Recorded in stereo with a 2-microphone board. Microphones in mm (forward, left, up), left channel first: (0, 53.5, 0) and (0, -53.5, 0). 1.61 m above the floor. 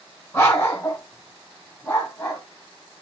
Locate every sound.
0.3 s a dog barking: 25° left (ahead or behind), 1.9 m